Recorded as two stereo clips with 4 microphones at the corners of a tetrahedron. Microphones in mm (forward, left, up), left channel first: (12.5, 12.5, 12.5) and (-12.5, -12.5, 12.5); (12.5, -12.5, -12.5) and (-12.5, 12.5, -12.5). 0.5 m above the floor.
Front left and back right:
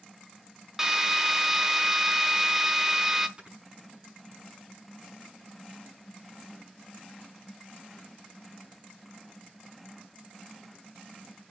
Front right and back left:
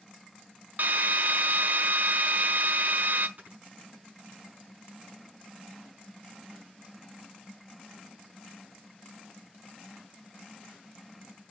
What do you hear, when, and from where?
0.8 s a drill: 150° left, 1.2 m
3.4 s snoring: 165° left, 6 m